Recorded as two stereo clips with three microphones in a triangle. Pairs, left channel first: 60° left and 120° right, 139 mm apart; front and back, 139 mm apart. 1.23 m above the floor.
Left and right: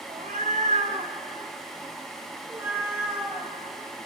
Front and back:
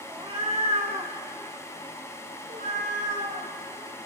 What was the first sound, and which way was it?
A cat meowing, 130° right.